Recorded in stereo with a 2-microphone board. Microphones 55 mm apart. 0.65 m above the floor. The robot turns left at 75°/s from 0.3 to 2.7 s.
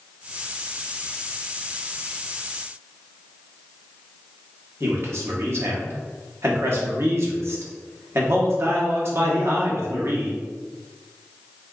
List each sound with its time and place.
4.8 s a man speaking: 50° right (ahead or behind), 0.8 m